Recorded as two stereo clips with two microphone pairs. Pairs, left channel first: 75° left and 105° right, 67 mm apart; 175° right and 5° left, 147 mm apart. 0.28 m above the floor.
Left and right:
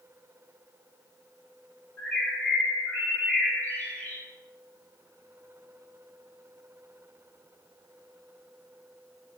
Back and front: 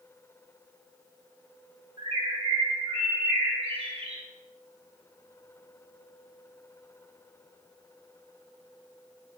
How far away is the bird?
About 2 m.